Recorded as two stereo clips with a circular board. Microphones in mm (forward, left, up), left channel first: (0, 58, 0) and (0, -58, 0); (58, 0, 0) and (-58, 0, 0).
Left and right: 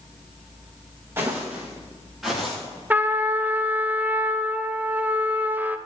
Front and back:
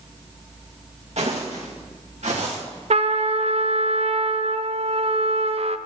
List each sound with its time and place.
1.2 s footsteps: 160° right, 3 m; by 2.6 s straight behind, 4 m
2.9 s a trumpet: 160° right, 0.6 m